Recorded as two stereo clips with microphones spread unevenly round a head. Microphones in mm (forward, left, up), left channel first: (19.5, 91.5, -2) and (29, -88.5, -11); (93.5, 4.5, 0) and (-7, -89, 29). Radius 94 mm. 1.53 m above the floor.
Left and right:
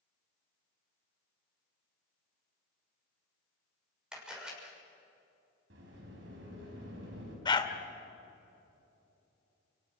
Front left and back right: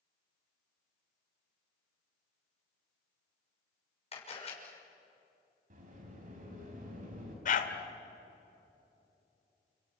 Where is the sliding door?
120° right, 5 m.